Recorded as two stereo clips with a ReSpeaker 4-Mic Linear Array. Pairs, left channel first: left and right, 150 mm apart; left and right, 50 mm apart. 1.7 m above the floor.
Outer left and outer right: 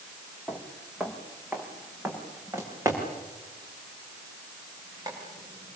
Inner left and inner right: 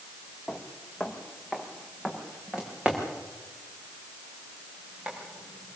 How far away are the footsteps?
About 3 m.